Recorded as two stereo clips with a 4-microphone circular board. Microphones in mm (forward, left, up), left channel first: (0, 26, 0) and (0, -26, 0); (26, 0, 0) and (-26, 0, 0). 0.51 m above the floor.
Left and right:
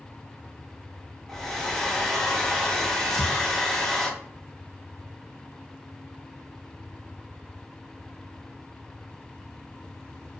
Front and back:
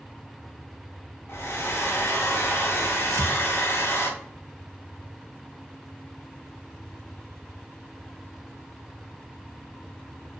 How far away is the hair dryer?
About 0.6 m.